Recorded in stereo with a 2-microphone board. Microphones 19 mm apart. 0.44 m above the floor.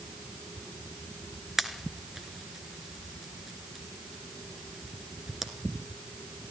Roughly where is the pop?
Right.